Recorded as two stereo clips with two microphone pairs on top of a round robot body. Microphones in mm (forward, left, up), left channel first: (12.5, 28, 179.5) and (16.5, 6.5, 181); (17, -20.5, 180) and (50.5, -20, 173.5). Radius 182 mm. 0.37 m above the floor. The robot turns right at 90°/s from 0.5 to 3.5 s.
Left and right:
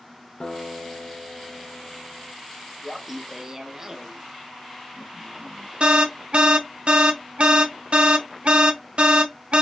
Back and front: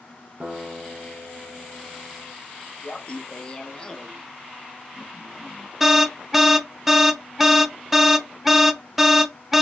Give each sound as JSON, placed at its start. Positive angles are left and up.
{"t": 0.4, "sound": "a guitar", "azimuth_deg": 50, "distance_m": 0.9}
{"t": 2.8, "sound": "laughter", "azimuth_deg": -175, "distance_m": 0.9}
{"t": 5.8, "sound": "an alarm", "azimuth_deg": -70, "distance_m": 0.7}